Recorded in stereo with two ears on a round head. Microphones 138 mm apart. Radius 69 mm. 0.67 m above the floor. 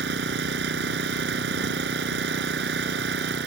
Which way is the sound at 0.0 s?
80° right.